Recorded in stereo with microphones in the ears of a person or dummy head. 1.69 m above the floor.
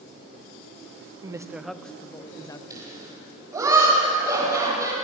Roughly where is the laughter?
Centre.